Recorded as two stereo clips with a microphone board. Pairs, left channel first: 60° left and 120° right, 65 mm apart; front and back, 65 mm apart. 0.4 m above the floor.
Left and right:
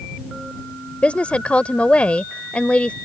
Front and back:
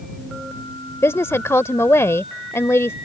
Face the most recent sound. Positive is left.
turn(degrees=0)